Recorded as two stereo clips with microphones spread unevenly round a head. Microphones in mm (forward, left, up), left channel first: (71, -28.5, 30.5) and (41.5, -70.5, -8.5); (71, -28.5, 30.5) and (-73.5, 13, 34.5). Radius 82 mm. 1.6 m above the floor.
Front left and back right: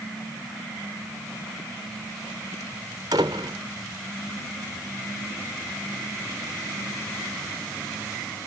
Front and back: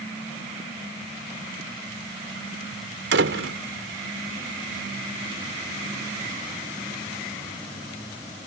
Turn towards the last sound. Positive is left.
turn(degrees=170)